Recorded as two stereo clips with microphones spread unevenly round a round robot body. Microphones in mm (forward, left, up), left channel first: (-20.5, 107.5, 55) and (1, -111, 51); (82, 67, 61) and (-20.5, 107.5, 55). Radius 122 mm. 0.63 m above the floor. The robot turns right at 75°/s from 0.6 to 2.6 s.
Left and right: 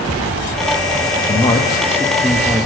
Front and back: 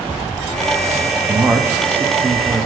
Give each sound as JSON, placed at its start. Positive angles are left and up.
{"t": 1.3, "sound": "a man speaking", "azimuth_deg": 110, "distance_m": 0.7}